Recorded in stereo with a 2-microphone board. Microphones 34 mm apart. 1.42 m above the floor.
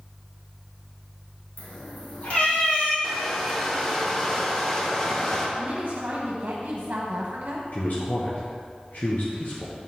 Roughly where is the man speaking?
Left.